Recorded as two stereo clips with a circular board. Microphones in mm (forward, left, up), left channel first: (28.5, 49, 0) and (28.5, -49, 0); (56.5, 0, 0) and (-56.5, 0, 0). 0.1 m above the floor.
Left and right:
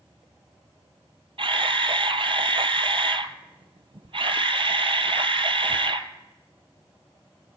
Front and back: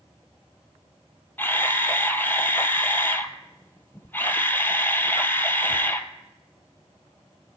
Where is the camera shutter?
70° right, 0.6 m.